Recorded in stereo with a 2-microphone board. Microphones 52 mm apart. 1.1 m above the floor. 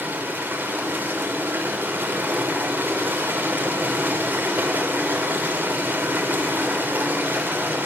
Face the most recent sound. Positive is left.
turn(degrees=-40)  # may be behind; listen again after turning